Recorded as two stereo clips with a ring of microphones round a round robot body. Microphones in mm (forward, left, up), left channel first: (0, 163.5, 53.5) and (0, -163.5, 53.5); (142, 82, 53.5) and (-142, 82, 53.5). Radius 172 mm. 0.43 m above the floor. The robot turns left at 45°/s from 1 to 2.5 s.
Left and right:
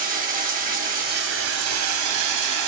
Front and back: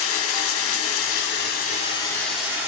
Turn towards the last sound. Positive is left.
turn(degrees=-95)